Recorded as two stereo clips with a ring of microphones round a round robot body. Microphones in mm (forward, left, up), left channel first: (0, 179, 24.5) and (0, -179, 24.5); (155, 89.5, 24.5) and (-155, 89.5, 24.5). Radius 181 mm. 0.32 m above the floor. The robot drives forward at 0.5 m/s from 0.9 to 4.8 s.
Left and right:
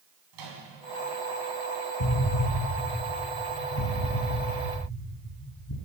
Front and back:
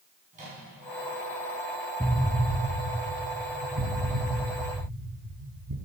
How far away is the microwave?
About 3 m.